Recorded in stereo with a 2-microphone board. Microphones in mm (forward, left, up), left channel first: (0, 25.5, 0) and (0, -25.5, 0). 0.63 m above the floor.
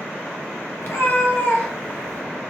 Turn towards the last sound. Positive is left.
turn(degrees=0)  # may be behind; listen again after turning